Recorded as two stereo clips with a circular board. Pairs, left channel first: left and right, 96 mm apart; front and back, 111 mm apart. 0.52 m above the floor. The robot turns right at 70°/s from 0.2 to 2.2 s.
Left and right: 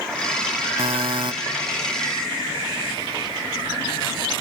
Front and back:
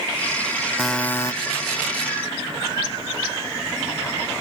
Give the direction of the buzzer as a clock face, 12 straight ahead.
3 o'clock.